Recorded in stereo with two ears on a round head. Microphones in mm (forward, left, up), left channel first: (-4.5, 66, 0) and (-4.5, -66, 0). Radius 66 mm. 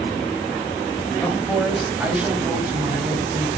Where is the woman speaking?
5° left (ahead or behind), 3 m; by 3.5 s 30° right (ahead or behind), 3.5 m.